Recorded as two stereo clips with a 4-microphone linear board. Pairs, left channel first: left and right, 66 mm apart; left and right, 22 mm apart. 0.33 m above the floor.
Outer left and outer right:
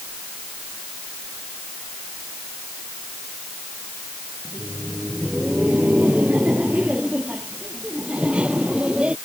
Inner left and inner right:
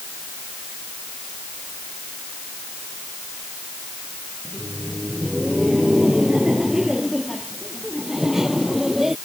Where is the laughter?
25° right (ahead or behind); by 9.2 s 15° right (ahead or behind).